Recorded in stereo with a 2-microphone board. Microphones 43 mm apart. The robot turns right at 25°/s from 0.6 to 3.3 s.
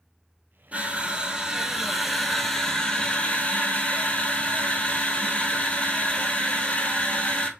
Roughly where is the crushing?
Ahead right.